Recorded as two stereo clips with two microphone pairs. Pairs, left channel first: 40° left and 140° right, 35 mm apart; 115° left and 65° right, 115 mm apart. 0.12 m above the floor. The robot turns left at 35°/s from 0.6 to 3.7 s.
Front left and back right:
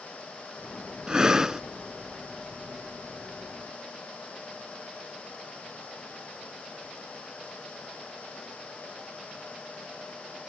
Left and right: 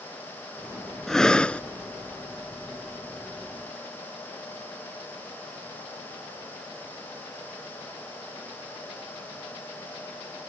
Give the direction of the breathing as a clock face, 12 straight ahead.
6 o'clock.